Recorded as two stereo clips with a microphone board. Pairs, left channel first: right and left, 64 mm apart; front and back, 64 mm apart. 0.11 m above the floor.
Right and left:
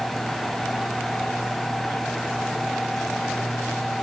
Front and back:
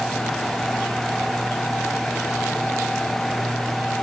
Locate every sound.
Only background noise.